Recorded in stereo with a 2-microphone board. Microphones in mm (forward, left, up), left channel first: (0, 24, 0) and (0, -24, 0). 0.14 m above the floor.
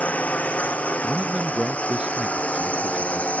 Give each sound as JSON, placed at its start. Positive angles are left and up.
{"t": 0.0, "sound": "a drone", "side_deg": 30}
{"t": 1.0, "sound": "a man speaking", "side_deg": -20}